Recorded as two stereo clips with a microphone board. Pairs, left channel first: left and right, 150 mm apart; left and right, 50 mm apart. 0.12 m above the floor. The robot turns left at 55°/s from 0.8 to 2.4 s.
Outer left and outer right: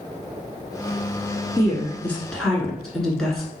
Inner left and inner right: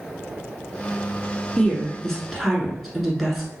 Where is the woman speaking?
20° left (ahead or behind), 1.1 m; by 3.5 s 5° left (ahead or behind), 1.1 m.